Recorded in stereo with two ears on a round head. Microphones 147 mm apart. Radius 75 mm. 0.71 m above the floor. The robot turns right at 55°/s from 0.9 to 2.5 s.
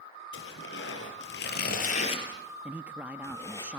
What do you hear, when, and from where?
0.3 s tearing paper: 75° left (ahead or behind), 5 m; by 3.6 s 20° left (ahead or behind), 5 m
2.6 s a man speaking: 10° right (ahead or behind), 0.7 m